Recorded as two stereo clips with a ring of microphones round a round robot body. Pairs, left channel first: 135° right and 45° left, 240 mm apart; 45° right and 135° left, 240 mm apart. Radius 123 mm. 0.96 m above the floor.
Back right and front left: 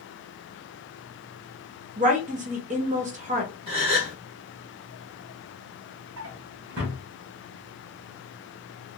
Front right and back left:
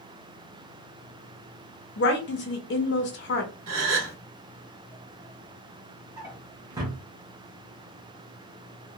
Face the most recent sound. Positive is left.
turn(degrees=65)